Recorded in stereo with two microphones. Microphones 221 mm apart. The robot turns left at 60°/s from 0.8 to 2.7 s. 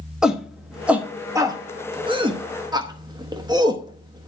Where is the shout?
5° right (ahead or behind), 0.8 m; by 4.3 s 20° right (ahead or behind), 0.8 m.